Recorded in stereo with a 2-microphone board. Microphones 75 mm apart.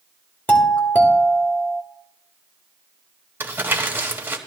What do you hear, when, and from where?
0.5 s a doorbell: 20° left (ahead or behind), 1.9 m
3.4 s crumpling: 30° right (ahead or behind), 1.3 m